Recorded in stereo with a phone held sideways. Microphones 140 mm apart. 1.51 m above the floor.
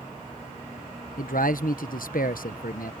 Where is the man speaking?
75° left (ahead or behind).